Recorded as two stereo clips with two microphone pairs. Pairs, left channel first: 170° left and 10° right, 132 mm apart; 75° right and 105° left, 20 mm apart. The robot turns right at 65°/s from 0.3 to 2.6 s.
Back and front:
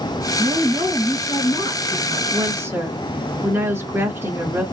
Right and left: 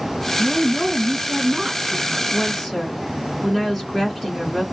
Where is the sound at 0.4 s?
55° left, 1.6 m; by 2.2 s 175° left, 1.6 m.